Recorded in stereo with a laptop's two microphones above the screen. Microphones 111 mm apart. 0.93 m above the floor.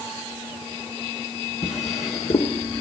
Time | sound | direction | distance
1.6 | a drawer | 85° left | 1.3 m